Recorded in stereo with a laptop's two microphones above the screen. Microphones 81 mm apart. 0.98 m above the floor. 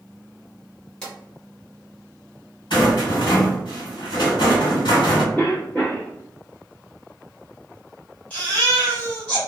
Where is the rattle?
75° left (ahead or behind), 1.5 m.